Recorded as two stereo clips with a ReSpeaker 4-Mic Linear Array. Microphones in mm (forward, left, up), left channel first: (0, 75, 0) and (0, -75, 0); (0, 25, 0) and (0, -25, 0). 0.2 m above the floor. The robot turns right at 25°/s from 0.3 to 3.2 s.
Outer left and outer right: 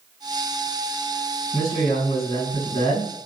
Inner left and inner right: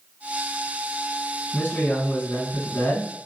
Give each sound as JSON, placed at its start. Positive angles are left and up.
{"t": 1.5, "sound": "a man speaking", "azimuth_deg": 75, "distance_m": 1.7}